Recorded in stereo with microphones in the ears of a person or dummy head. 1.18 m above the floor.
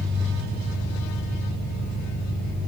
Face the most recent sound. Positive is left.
turn(degrees=-60)  # may be behind; listen again after turning